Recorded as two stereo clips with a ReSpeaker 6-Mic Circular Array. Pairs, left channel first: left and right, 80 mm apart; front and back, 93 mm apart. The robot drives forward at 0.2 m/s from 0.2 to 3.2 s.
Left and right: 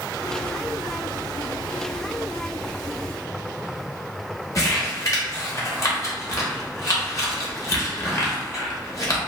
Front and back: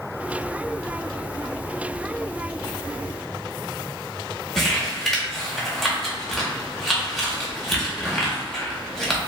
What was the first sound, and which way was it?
Crumpling, 90° left.